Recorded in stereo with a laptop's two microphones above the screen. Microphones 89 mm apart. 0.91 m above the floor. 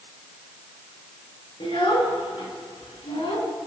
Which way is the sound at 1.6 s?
85° left.